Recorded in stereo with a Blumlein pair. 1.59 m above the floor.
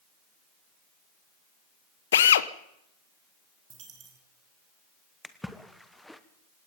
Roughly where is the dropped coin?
Ahead right.